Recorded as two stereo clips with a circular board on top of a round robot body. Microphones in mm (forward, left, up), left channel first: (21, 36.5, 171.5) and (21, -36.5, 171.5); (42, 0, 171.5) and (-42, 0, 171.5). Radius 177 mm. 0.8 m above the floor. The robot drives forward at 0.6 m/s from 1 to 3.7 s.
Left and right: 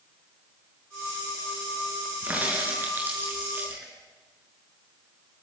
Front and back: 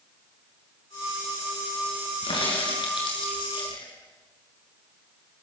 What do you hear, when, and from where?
2.2 s a crack: 25° right, 7 m